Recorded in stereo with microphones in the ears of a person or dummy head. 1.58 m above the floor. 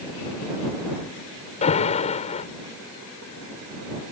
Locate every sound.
1.6 s an alarm: 35° left (ahead or behind)